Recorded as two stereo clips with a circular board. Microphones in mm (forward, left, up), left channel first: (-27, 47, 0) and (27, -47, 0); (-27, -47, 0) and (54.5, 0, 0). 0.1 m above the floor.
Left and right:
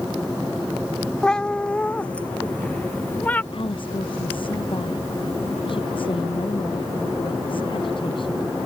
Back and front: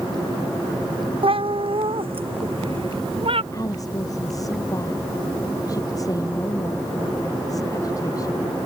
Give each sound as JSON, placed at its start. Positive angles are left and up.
{"t": 1.2, "sound": "a cat meowing", "azimuth_deg": 35}
{"t": 3.5, "sound": "a woman speaking", "azimuth_deg": 160}